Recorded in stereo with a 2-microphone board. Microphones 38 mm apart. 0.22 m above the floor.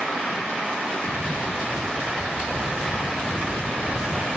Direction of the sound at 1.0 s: 55° right (ahead or behind).